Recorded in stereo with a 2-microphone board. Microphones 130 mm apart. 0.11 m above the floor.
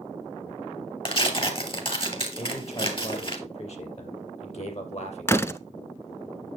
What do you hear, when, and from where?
1.1 s tearing paper: 40° left (ahead or behind), 2.5 m
2.4 s a man speaking: 55° left (ahead or behind), 3 m
5.3 s a door slam: 20° left (ahead or behind), 0.8 m